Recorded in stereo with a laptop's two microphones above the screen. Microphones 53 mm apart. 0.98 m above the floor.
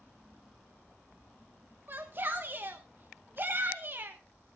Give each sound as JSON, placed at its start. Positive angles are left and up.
{"t": 1.9, "sound": "a shout", "side_deg": -40, "distance_m": 1.1}